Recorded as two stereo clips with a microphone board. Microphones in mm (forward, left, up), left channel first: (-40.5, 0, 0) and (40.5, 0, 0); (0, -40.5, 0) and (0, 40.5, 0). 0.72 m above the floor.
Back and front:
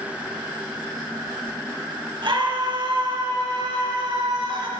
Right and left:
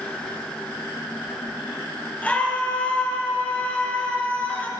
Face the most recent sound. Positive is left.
turn(degrees=-20)